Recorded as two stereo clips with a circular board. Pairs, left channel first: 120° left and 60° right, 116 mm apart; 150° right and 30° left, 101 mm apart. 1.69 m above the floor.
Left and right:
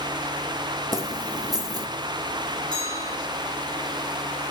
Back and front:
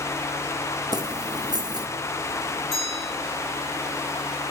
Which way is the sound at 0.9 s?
10° right.